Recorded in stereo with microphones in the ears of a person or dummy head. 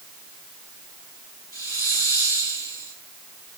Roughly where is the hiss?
Left.